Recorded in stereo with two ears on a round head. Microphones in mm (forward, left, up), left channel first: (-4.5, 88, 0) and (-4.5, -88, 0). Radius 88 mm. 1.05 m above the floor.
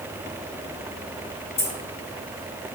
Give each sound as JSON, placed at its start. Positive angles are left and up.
{"t": 1.6, "sound": "keys jangling", "side_deg": 55, "distance_m": 1.8}